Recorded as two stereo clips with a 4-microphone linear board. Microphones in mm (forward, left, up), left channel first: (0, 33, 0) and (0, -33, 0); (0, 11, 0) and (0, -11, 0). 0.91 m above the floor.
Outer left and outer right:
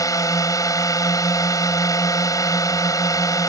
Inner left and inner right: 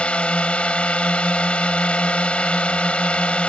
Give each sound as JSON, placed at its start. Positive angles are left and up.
{"t": 0.0, "sound": "a drone", "side_deg": 60}